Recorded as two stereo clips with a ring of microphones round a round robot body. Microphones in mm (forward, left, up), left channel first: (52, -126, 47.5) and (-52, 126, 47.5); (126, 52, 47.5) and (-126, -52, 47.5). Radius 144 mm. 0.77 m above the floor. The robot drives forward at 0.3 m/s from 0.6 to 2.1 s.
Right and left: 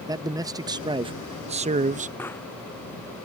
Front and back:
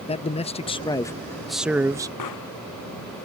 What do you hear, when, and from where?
0.1 s a man speaking: 55° left; by 2.1 s 140° left
2.2 s a pop: 15° left